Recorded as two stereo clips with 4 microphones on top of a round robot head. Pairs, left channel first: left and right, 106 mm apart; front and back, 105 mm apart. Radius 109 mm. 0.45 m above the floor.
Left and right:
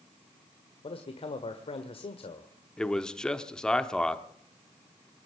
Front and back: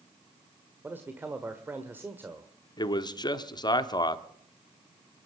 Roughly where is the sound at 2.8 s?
Ahead.